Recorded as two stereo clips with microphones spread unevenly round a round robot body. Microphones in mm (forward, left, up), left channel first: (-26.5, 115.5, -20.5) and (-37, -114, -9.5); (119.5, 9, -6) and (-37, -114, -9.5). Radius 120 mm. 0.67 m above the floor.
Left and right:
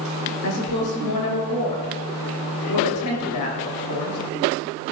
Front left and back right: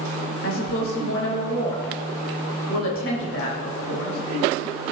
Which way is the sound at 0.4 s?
70° left.